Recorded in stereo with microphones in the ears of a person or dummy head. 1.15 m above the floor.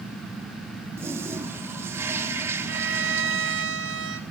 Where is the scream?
No scream in this recording.